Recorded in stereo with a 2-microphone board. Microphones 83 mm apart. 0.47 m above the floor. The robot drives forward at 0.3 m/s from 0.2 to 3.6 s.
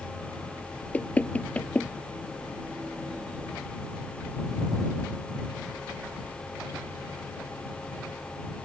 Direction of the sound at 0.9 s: 20° left (ahead or behind).